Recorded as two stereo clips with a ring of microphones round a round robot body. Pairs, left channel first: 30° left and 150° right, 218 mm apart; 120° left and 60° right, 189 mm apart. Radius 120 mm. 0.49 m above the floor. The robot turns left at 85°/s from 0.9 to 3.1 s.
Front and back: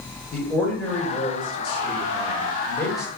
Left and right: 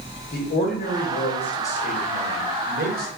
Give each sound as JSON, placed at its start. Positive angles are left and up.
{"t": 0.3, "sound": "a man speaking", "azimuth_deg": 115, "distance_m": 1.8}